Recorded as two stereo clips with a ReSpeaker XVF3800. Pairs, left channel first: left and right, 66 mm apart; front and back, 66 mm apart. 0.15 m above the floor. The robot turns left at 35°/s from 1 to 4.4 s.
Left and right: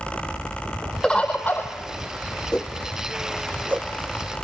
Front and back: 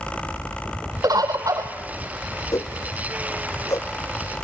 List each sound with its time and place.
1.0 s a bird: 165° left, 2 m; by 1.7 s 145° left, 2 m
2.5 s a whoosh: 15° left, 1.2 m; by 3.9 s 35° right, 1.2 m